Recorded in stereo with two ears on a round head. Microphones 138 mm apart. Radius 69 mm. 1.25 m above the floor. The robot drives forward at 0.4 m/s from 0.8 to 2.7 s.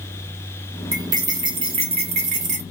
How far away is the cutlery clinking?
About 0.9 m.